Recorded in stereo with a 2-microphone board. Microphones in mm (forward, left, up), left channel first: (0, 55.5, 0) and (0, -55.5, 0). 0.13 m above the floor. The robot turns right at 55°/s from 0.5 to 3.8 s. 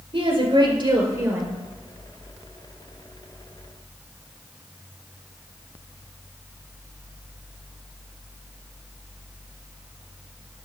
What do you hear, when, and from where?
0.1 s a woman speaking: 70° right, 2 m; by 1.6 s 10° right, 2 m